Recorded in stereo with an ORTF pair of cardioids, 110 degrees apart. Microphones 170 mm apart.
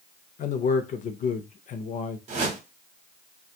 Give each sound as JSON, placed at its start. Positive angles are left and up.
{"t": 0.4, "sound": "a man speaking", "azimuth_deg": 50, "distance_m": 0.6}
{"t": 2.3, "sound": "a whoosh", "azimuth_deg": -45, "distance_m": 0.9}